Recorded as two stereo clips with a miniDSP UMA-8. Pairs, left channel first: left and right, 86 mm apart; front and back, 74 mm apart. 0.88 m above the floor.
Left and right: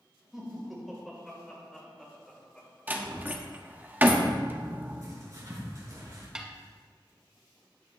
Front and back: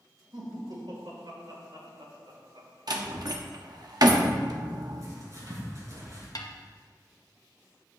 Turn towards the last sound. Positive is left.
turn(degrees=-10)